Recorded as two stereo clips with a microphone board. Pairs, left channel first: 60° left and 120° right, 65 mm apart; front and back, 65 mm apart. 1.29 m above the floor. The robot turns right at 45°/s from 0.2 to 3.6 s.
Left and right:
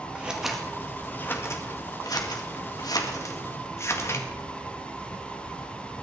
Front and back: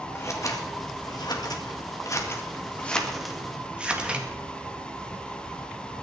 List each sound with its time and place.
0.1 s scissors: 45° right, 2 m; by 4.3 s 105° left, 2 m